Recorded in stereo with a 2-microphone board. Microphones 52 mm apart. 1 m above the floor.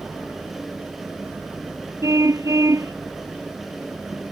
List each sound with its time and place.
2.0 s a car horn: 85° right